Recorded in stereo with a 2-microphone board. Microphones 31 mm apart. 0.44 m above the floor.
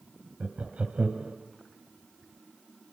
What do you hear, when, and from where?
0.4 s laughter: 45° right (ahead or behind), 2.0 m